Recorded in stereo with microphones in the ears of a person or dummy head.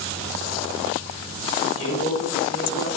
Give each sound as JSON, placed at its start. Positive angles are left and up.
{"t": 1.6, "sound": "a man speaking", "side_deg": 40, "distance_m": 5.0}